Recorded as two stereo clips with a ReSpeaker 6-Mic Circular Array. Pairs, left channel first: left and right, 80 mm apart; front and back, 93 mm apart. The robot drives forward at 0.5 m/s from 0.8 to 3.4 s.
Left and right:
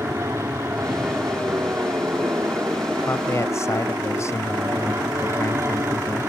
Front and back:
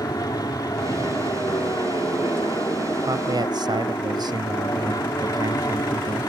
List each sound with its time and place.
0.0 s an aircraft: 40° right
3.0 s a man speaking: 140° left